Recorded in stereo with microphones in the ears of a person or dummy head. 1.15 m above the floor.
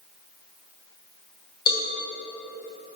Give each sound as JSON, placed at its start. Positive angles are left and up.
{"t": 1.7, "sound": "a cowbell", "side_deg": 25, "distance_m": 1.1}